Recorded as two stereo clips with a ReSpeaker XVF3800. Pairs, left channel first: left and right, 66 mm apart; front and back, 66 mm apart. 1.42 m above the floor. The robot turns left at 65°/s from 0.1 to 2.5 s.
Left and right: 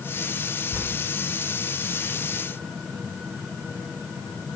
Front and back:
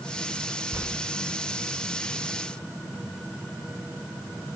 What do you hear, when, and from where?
0.7 s tearing paper: 150° right, 1.8 m; by 0.9 s 160° right, 1.8 m